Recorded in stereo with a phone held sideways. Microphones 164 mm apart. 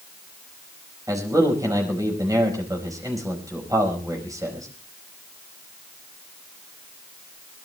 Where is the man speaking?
20° right (ahead or behind), 5 m.